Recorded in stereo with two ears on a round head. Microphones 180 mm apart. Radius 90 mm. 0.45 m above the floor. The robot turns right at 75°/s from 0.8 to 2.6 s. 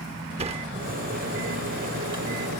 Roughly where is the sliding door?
Right.